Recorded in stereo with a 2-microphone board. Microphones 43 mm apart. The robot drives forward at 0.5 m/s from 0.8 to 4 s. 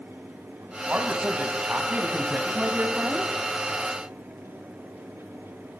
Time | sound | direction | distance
0.9 | a man speaking | 30° right (ahead or behind) | 2.5 m